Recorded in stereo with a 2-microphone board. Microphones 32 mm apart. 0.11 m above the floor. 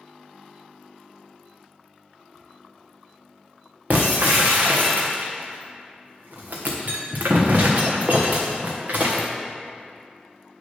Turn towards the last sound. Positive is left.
turn(degrees=-60)  # may be behind; listen again after turning